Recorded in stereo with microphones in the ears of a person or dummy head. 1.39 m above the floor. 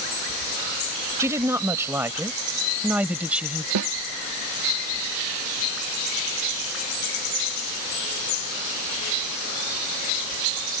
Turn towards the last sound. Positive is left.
turn(degrees=-85)